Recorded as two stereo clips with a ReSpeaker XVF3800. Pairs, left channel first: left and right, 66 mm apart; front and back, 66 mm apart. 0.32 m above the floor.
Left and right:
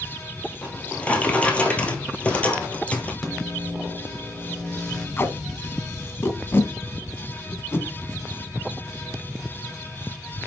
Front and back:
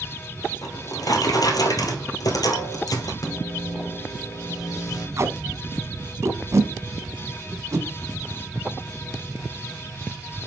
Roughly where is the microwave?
Ahead.